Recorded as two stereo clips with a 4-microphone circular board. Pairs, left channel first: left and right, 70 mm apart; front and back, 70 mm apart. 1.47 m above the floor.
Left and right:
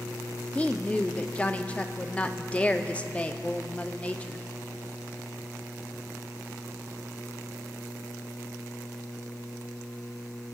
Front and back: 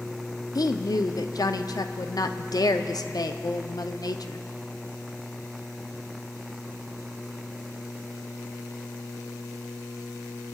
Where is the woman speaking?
20° left, 0.6 m.